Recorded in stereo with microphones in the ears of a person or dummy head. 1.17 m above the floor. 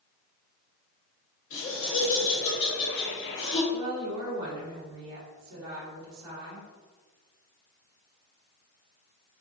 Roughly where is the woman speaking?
Right.